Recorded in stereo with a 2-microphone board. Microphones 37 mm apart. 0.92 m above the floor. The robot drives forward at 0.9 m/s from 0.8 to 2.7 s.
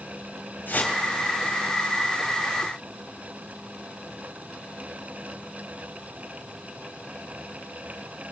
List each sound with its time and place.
0.7 s a whoosh: 55° left (ahead or behind), 3.5 m; by 1.0 s 60° left (ahead or behind), 3.5 m